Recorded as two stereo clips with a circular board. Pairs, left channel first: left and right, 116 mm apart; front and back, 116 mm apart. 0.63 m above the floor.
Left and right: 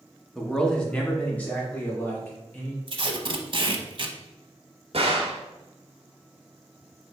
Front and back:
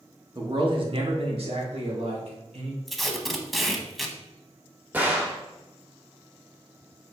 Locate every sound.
0.3 s a man speaking: 175° left, 0.9 m; by 2.8 s 165° left, 2 m
2.9 s tape being pulled: 90° right, 0.6 m
4.9 s a gunshot: 105° right, 1.0 m